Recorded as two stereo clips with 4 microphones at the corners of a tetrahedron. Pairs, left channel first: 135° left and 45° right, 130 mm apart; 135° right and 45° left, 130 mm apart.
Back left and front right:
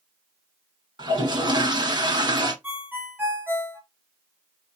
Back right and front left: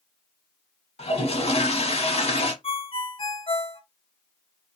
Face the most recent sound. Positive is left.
turn(degrees=-115)